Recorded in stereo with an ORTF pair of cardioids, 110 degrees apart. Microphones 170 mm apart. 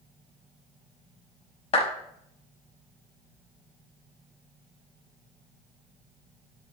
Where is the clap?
35° left, 5.5 m.